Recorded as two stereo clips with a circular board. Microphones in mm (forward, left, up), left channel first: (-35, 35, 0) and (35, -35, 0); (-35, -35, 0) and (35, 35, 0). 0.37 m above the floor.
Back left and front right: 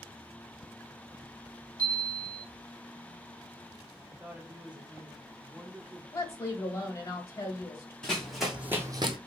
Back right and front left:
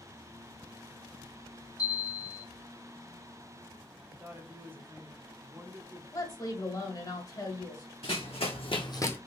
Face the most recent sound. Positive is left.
turn(degrees=-65)